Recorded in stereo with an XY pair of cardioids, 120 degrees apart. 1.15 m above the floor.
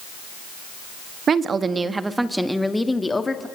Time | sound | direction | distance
1.3 | a woman speaking | 40° right | 1.6 m